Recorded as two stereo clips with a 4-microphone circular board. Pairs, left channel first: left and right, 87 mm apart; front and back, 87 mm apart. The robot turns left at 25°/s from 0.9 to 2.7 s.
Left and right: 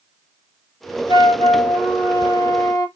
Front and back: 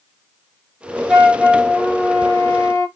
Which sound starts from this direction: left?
A flute, at 1.1 s.